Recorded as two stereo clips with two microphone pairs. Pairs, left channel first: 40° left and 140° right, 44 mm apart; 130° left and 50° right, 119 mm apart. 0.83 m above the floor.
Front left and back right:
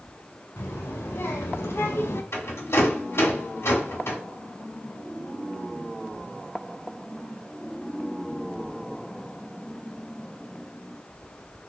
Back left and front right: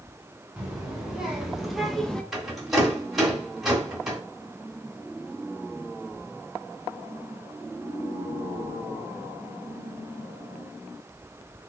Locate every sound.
0.6 s a child speaking: 35° left, 1.5 m; by 2.2 s 50° left, 0.6 m
2.3 s a rattle: 35° left, 1.2 m